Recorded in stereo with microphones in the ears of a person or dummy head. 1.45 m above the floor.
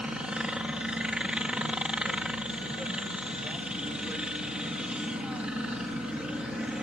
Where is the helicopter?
5° right (ahead or behind).